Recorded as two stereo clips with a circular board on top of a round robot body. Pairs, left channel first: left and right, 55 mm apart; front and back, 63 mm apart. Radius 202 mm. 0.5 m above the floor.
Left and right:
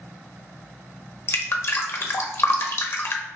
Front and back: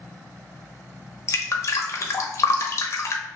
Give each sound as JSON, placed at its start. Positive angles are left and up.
{"t": 1.3, "sound": "dripping", "azimuth_deg": 50, "distance_m": 0.8}